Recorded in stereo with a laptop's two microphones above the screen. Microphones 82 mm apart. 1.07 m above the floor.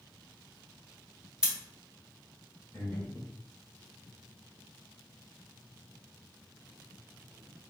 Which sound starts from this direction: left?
Breathing, at 2.7 s.